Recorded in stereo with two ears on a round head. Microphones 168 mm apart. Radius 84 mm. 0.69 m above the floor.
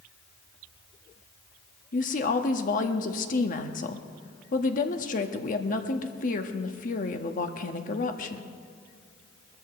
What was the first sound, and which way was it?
A woman speaking, 45° left (ahead or behind).